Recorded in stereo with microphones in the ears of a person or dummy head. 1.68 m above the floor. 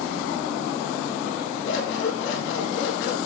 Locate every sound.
1.6 s scissors: 75° left (ahead or behind), 3 m